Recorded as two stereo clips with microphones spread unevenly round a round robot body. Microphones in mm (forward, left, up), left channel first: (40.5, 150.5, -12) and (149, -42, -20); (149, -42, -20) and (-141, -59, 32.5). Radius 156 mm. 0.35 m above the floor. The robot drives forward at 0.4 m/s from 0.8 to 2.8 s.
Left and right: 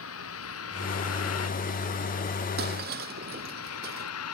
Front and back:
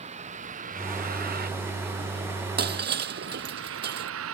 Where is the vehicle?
115° left; by 4.3 s 135° left.